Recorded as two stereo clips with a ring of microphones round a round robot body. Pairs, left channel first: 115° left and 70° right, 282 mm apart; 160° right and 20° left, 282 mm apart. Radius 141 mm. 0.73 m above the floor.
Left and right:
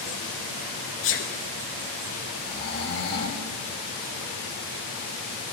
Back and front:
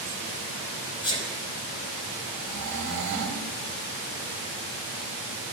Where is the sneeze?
135° left, 0.6 m.